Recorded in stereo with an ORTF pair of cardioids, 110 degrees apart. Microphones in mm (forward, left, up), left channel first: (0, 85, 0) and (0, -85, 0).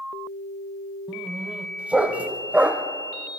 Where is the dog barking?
10° right, 2.5 m.